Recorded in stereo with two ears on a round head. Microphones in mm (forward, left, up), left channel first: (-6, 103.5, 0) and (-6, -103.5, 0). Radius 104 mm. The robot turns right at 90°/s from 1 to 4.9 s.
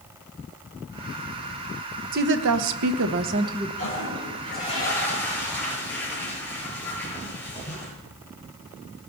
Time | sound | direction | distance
2.1 | a woman speaking | 140° right | 1.1 m
3.8 | a toilet flushing | 70° left | 7.5 m